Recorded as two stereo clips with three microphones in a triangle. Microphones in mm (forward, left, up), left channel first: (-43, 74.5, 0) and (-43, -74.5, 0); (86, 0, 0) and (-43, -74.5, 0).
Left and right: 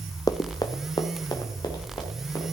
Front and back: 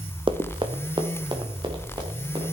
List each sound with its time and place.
0.3 s running footsteps: 160° left, 0.5 m; by 2.5 s 150° left, 3 m